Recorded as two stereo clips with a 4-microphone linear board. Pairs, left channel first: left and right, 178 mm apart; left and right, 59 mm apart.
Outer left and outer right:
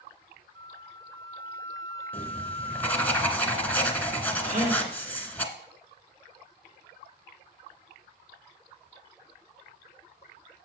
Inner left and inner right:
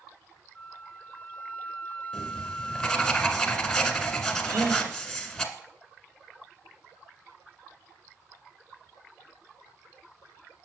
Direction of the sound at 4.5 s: 40° right (ahead or behind).